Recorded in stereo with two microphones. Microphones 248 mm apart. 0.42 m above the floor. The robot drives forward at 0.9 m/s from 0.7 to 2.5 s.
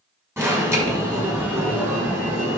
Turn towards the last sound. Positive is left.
turn(degrees=-10)  # may be behind; listen again after turning